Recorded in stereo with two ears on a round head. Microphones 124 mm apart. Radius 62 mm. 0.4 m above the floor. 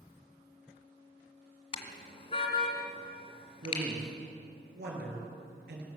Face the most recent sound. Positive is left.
turn(degrees=-80)